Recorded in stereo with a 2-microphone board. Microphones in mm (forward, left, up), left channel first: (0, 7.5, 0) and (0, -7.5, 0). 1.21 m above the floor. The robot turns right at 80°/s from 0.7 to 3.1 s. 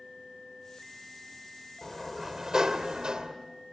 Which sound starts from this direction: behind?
A sliding door, at 1.8 s.